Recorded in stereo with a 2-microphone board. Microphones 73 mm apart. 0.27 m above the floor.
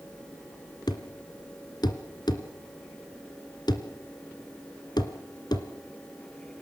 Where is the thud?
70° left (ahead or behind), 1.8 m.